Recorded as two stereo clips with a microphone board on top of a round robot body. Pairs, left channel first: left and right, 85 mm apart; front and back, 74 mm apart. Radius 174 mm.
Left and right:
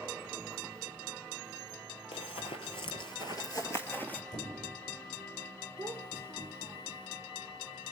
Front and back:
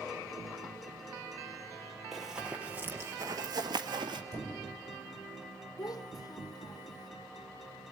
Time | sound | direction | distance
2.1 | running footsteps | 90° left | 1.1 m
4.3 | a squeak | 125° left | 7.5 m
5.8 | a child speaking | 30° right | 1.8 m